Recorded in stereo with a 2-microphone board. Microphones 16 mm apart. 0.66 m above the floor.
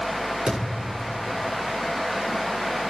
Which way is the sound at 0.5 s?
80° right.